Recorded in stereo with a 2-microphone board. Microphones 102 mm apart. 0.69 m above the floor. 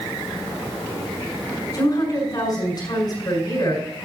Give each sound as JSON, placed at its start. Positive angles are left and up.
{"t": 1.7, "sound": "a woman speaking", "side_deg": 40, "distance_m": 6.0}